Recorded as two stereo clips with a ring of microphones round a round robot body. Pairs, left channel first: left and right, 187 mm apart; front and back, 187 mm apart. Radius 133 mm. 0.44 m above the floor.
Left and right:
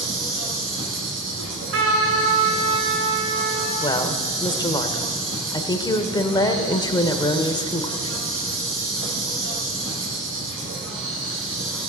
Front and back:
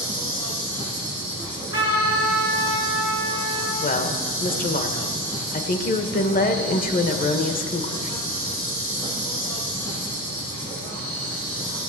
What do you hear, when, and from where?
0.0 s an insect: 80° right, 4 m
1.4 s a trumpet: 105° right, 5 m
3.8 s a woman speaking: 25° left, 1.3 m